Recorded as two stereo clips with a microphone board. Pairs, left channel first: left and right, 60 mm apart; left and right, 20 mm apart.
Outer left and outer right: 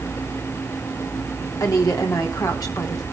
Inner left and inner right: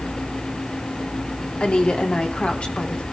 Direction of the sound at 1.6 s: 70° left (ahead or behind).